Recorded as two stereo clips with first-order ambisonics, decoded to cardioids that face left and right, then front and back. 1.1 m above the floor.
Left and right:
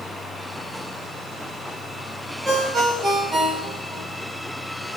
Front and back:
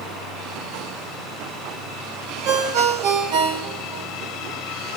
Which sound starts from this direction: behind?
A ringtone, at 2.5 s.